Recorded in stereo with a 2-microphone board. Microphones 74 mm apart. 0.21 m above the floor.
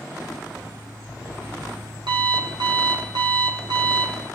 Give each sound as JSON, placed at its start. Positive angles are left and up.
{"t": 0.5, "sound": "an alarm clock", "side_deg": -85, "distance_m": 4.5}